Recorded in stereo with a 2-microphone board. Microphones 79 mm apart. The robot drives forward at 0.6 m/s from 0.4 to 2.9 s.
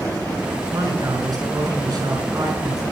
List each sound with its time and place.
0.7 s a man speaking: 55° right (ahead or behind), 6.5 m; by 2.8 s 50° right (ahead or behind), 7.5 m